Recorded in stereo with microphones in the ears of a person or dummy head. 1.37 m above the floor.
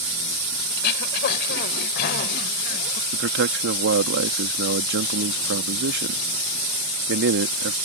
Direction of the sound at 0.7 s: 60° left (ahead or behind).